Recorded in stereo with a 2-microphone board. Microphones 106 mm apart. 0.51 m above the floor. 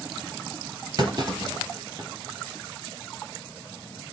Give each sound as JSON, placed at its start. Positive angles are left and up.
{"t": 1.0, "sound": "a clunk", "side_deg": -45, "distance_m": 3.5}